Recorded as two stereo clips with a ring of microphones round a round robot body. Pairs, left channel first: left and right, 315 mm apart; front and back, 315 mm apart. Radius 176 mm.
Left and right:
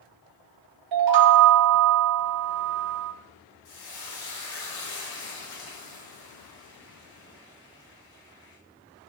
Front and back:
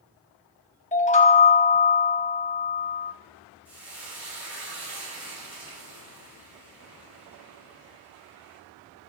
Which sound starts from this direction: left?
Frying, at 3.6 s.